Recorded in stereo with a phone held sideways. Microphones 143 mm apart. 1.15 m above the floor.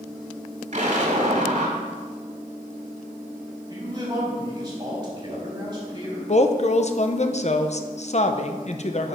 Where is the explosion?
55° right (ahead or behind), 2.5 m.